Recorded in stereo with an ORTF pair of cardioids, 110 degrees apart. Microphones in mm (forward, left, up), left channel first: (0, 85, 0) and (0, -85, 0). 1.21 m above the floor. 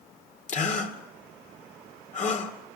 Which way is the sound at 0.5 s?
50° left.